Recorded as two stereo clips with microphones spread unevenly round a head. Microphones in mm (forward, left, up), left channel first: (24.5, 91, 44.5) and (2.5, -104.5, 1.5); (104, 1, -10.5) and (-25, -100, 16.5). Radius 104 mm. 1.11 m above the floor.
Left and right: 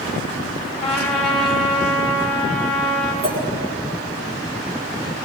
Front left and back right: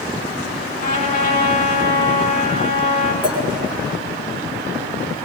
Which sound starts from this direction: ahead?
A trumpet, at 0.8 s.